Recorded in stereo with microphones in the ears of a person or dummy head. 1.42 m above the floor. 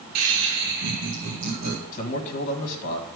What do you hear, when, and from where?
0.1 s laughter: 75° right (ahead or behind), 1.0 m; by 1.8 s 40° right (ahead or behind), 3 m
1.9 s a man speaking: 35° left (ahead or behind), 1.7 m